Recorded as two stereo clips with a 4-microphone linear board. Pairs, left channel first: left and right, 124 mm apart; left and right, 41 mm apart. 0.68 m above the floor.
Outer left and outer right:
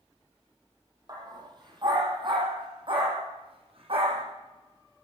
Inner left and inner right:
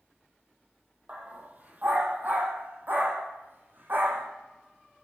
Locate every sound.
1.1 s a dog barking: 35° right (ahead or behind), 6 m; by 4.2 s 50° right (ahead or behind), 8 m